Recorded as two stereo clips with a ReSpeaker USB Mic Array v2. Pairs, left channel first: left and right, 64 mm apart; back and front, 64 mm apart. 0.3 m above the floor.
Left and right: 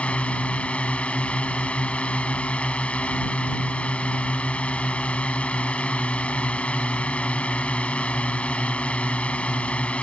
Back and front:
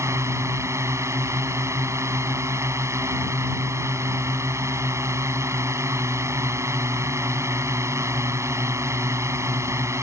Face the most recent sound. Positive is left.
turn(degrees=25)